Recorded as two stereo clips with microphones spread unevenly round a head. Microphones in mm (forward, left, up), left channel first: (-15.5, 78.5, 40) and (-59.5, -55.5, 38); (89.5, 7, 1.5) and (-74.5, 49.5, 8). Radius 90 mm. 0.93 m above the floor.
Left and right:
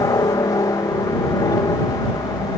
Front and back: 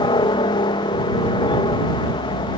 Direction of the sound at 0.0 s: 20° left.